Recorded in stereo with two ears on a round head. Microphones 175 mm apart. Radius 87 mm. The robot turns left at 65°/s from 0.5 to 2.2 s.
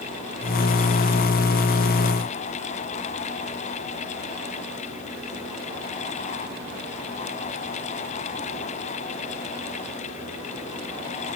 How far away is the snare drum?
No snare drum in this recording.